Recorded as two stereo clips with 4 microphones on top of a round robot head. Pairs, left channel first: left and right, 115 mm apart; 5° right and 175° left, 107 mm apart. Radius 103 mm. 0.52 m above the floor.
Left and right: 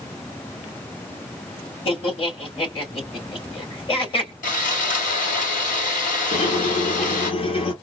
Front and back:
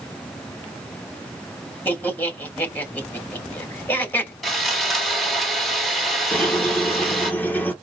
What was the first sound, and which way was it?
Laughter, 65° left.